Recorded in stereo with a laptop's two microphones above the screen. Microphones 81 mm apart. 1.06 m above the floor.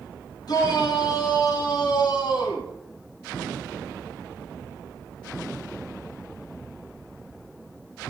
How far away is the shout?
About 5 m.